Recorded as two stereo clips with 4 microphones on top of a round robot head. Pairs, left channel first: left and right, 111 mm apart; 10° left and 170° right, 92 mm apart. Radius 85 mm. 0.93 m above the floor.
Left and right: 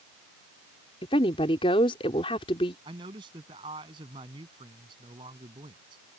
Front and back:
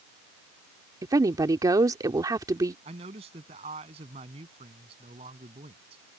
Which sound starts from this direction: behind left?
A woman speaking, at 1.0 s.